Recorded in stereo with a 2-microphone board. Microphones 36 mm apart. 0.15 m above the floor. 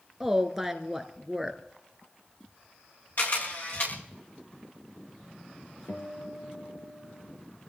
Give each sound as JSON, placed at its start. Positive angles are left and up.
{"t": 0.2, "sound": "a woman speaking", "side_deg": -5, "distance_m": 1.7}
{"t": 3.2, "sound": "a camera shutter", "side_deg": 55, "distance_m": 8.0}
{"t": 5.9, "sound": "a guitar", "side_deg": 65, "distance_m": 3.5}